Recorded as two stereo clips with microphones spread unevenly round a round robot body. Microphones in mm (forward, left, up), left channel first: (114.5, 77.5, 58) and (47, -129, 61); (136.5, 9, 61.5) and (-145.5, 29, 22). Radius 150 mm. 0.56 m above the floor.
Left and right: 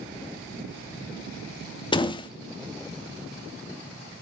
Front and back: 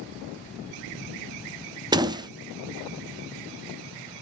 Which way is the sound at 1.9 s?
125° left.